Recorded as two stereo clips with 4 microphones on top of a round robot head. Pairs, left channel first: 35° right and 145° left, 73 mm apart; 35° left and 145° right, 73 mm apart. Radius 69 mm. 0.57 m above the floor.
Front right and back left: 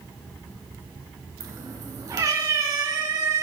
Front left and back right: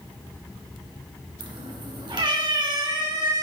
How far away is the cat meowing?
About 3.5 m.